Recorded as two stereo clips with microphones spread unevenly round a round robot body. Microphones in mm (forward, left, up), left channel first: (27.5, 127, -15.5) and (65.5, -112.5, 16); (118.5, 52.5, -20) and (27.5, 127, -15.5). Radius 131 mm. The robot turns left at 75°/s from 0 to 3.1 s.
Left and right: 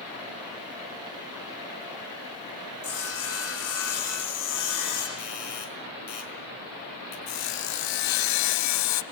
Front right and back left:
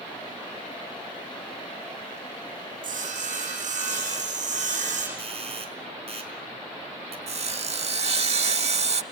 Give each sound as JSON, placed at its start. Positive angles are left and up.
{"t": 2.8, "sound": "sawing", "azimuth_deg": 145, "distance_m": 9.5}
{"t": 5.2, "sound": "a doorbell", "azimuth_deg": 105, "distance_m": 5.0}
{"t": 7.3, "sound": "sawing", "azimuth_deg": 105, "distance_m": 1.0}